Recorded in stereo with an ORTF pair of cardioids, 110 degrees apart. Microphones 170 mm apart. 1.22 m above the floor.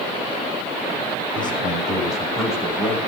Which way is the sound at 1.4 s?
25° left.